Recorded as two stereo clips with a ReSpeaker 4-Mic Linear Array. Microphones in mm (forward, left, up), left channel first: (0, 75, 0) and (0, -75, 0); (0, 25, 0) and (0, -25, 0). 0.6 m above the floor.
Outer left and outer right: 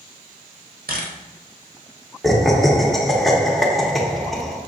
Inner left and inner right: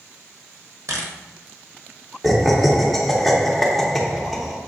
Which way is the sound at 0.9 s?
75° right (ahead or behind).